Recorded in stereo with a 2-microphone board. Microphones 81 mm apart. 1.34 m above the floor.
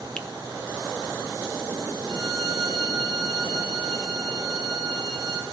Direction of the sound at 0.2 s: 10° left (ahead or behind).